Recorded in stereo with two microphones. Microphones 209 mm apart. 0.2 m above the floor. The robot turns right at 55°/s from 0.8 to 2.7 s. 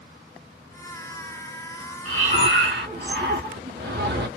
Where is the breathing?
90° right, 1.2 m; by 4.3 s 55° right, 1.2 m.